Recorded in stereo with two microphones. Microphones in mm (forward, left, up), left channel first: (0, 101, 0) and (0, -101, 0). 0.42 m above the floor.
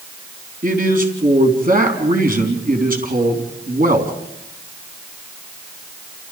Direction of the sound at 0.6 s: 45° right (ahead or behind).